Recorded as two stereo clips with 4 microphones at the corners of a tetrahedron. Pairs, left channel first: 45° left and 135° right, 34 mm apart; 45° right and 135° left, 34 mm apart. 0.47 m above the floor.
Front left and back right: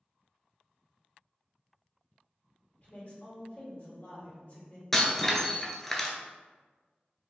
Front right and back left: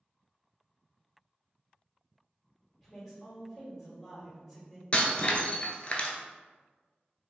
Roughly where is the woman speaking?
Ahead left.